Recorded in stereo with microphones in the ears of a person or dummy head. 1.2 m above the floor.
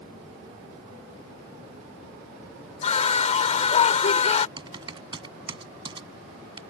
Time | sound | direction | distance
2.8 | a scream | 40° left (ahead or behind) | ?
4.6 | typing on a keyboard | 30° right (ahead or behind) | ?